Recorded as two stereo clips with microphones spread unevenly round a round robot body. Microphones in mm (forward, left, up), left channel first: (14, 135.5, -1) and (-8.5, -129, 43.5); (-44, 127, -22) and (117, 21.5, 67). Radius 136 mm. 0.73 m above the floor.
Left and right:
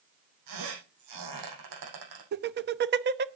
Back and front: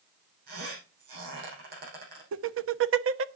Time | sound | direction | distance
0.5 | a squeak | 85° right | 6 m
2.3 | laughter | 50° right | 0.8 m